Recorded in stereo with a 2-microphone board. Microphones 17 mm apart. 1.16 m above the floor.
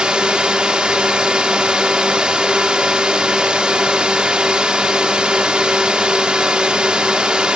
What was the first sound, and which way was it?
A drone, 70° right (ahead or behind).